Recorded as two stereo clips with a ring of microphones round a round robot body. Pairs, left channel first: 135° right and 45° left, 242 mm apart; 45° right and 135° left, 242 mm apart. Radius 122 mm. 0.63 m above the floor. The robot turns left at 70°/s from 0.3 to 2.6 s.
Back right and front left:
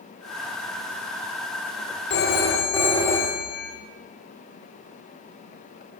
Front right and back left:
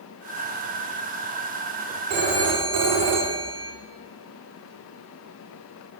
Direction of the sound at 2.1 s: Straight behind.